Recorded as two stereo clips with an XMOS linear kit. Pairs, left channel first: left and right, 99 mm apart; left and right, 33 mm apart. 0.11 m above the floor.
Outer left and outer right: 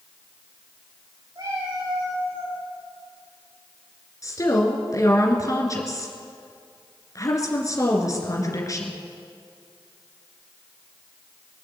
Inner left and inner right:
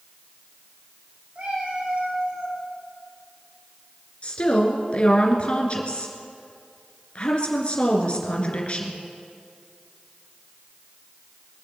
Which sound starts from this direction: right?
A cat meowing, at 1.4 s.